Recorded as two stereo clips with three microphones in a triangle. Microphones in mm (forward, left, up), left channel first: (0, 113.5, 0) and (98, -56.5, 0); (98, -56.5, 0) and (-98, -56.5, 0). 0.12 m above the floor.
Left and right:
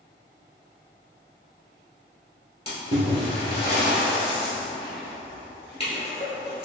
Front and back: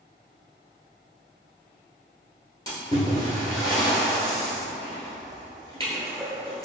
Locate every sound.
2.7 s a splash: 70° left, 1.5 m